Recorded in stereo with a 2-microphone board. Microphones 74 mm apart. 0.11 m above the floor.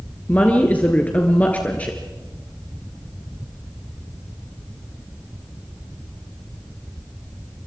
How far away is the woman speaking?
About 1.8 m.